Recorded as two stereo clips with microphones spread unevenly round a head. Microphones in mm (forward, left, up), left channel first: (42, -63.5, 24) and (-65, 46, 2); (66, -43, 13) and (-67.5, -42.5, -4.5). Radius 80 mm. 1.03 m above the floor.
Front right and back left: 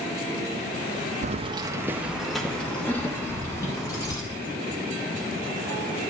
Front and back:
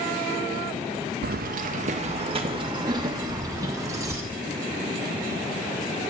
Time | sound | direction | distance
1.2 | keys jangling | straight behind | 0.5 m